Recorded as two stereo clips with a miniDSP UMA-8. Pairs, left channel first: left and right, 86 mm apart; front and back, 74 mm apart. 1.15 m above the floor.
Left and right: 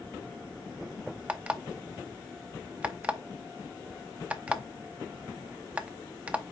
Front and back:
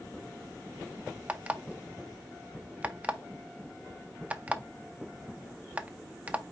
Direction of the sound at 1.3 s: 140° right.